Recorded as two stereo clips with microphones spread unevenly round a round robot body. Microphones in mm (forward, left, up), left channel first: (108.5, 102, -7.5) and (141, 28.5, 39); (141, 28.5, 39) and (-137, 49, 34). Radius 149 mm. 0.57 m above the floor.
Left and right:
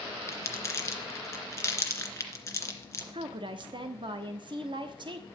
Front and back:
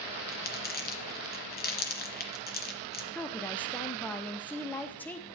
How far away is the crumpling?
About 2.5 m.